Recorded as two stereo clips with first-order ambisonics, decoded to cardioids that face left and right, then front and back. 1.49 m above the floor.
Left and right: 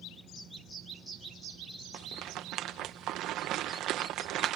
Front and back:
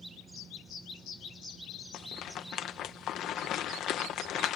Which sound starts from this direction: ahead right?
A rattle, at 1.9 s.